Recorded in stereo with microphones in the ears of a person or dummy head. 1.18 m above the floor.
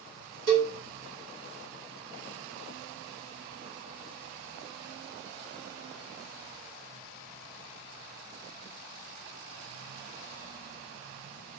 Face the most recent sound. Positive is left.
turn(degrees=-75)  # may be behind; listen again after turning